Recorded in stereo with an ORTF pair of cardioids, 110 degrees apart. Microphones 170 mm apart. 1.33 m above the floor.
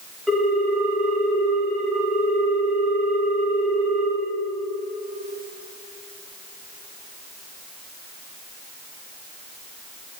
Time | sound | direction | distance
0.3 | a ringtone | straight ahead | 3.5 m